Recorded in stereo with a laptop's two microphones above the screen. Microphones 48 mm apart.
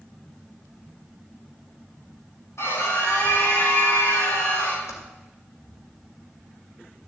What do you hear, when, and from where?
2.6 s a scream: 80° left, 8 m
4.9 s typing on a keyboard: 85° left, 2.5 m